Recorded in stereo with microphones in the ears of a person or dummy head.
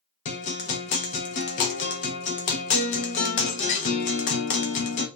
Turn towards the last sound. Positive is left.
turn(degrees=40)  # may be behind; listen again after turning